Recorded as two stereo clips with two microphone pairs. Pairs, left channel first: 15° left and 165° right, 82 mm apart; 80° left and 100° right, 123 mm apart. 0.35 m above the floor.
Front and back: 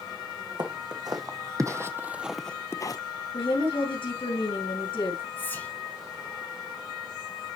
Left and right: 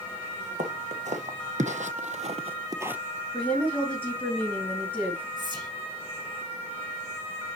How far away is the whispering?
About 3 m.